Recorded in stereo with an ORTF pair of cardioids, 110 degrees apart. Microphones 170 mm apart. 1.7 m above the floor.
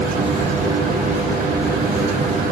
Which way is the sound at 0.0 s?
55° right.